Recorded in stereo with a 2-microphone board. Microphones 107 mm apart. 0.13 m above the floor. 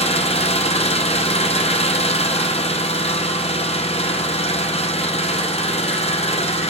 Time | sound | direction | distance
0.0 | an engine running | 75° left (ahead or behind) | 2.5 m